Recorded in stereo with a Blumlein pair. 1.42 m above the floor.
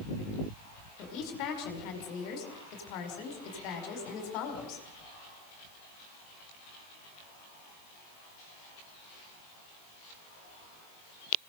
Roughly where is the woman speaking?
Ahead left.